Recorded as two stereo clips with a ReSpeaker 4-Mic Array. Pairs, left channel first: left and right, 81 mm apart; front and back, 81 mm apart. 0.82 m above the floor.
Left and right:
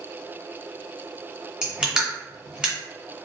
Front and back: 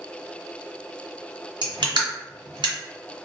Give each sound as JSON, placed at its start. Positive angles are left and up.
{"t": 1.6, "sound": "crushing", "azimuth_deg": -170, "distance_m": 1.6}